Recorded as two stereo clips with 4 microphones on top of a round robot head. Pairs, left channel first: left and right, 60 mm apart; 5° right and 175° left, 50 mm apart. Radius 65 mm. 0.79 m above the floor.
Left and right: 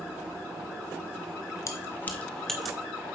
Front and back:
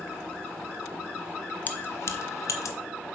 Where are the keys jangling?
50° left, 0.8 m; by 2.8 s 5° right, 1.0 m.